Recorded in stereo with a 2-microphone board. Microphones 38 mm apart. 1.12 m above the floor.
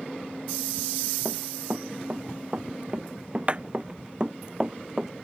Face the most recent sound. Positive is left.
turn(degrees=-15)  # may be behind; listen again after turning